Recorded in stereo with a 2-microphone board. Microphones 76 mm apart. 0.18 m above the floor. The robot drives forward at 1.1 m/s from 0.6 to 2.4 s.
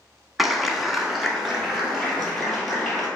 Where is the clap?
Centre (ahead or behind), 0.9 m.